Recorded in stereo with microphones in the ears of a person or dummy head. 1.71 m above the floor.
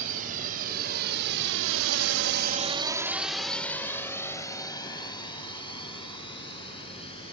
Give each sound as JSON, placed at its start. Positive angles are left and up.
{"t": 0.0, "sound": "a drone", "side_deg": -50}